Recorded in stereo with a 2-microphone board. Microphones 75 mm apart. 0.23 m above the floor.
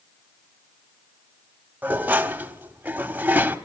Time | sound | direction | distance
1.8 | dishes clattering | 20° right (ahead or behind) | 0.8 m